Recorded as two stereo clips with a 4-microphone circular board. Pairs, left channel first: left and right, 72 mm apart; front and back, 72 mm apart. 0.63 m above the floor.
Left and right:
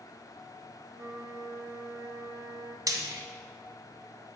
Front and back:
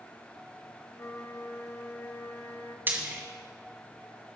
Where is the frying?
120° right, 1.7 m.